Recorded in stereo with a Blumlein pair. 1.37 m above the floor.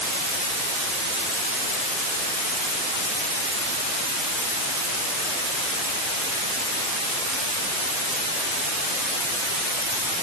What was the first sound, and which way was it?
Only background noise.